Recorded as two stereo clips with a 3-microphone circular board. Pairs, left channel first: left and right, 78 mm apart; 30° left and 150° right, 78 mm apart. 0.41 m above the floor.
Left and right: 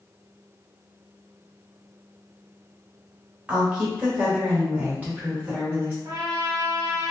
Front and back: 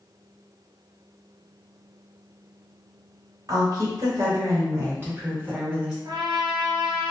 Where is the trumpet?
135° right, 0.9 m.